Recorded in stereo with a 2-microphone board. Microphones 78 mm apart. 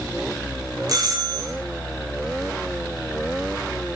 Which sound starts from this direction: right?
A doorbell, at 0.9 s.